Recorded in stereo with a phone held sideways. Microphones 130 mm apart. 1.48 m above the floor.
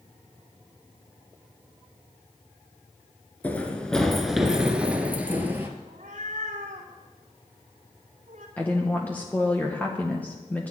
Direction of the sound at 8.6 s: 10° left (ahead or behind).